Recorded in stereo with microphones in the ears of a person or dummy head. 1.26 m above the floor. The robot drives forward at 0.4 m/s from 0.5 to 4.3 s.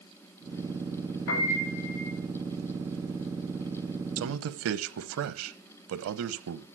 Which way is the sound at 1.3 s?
75° left (ahead or behind).